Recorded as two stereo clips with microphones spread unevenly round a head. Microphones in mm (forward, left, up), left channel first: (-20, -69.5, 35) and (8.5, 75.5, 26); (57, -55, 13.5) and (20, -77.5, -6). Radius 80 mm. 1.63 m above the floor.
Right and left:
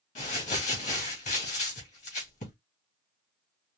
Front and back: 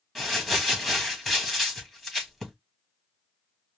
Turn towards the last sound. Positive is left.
turn(degrees=-55)